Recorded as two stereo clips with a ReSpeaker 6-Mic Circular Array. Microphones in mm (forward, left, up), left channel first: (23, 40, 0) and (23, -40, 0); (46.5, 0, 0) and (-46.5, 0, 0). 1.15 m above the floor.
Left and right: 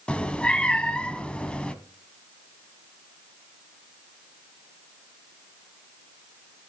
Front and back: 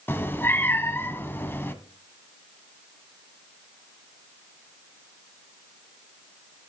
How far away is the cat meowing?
About 1.1 m.